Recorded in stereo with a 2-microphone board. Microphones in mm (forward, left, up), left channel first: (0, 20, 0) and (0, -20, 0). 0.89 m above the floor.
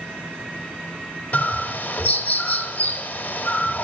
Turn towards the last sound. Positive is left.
turn(degrees=45)  # may be behind; listen again after turning